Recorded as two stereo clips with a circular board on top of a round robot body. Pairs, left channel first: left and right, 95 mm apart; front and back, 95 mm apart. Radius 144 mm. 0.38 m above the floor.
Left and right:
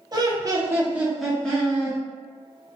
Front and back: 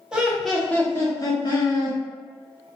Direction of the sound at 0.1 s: 100° right.